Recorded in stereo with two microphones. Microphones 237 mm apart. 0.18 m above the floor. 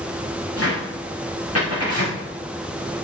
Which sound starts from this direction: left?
A cupboard door, at 0.6 s.